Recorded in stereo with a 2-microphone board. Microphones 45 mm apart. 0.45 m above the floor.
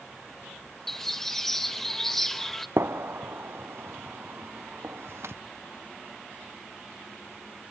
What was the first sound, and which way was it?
A bird, 10° left (ahead or behind).